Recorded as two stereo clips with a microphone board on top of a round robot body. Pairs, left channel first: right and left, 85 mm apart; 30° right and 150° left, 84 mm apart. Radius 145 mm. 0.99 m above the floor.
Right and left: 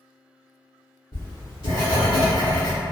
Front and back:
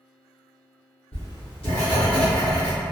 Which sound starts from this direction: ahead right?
Writing, at 1.1 s.